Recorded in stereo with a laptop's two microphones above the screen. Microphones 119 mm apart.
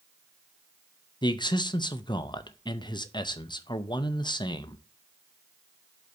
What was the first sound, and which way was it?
A man speaking, 40° left (ahead or behind).